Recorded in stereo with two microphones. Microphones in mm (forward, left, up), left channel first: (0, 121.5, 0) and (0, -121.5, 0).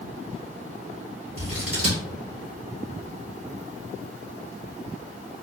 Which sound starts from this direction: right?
Scissors, at 1.4 s.